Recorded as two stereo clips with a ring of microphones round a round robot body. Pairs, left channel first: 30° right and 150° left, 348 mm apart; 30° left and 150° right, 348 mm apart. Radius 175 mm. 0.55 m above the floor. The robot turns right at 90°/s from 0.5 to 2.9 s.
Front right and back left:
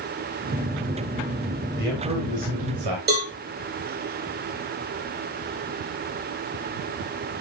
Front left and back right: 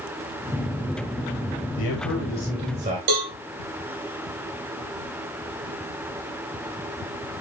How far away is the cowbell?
About 2.5 m.